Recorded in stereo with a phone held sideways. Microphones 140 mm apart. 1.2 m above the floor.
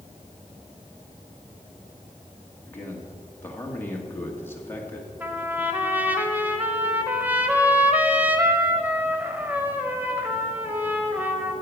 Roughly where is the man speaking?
Centre.